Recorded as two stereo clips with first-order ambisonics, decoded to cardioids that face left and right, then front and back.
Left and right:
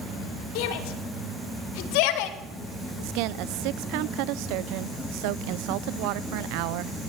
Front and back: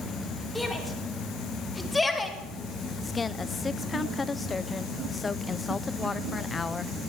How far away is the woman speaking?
About 0.9 m.